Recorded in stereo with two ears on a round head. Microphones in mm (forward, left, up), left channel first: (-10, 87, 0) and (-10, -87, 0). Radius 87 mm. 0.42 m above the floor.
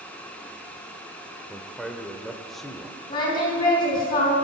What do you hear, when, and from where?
1.5 s a man speaking: centre (ahead or behind), 1.0 m
3.1 s singing: 25° left (ahead or behind), 4 m